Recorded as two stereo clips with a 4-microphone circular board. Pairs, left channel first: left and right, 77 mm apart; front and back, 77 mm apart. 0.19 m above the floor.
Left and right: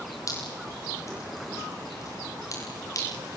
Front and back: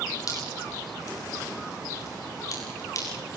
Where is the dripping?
45° left, 8.5 m.